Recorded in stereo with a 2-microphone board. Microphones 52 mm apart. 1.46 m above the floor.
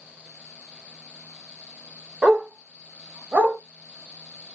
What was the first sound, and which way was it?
A dog barking, 15° right (ahead or behind).